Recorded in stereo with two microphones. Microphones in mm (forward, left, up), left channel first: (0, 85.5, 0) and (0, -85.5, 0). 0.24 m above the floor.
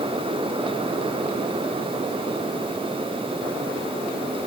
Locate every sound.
Only background noise.